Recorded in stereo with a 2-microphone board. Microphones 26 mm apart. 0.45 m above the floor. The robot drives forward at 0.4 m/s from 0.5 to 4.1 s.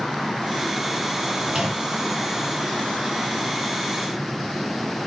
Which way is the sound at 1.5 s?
25° right (ahead or behind).